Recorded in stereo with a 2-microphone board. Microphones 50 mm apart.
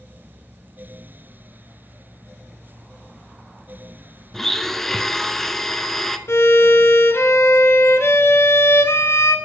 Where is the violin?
55° left (ahead or behind), 0.9 m.